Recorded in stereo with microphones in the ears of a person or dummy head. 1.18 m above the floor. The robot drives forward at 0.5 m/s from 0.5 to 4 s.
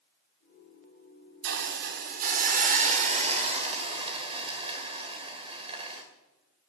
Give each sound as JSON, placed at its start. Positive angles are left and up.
{"t": 1.4, "sound": "a hiss", "side_deg": -55, "distance_m": 1.2}